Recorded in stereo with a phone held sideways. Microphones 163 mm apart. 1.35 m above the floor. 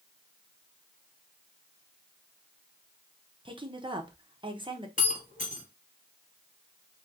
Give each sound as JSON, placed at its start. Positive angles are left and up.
{"t": 3.5, "sound": "a woman speaking", "side_deg": -30, "distance_m": 0.8}
{"t": 5.0, "sound": "breaking glass", "side_deg": 50, "distance_m": 2.0}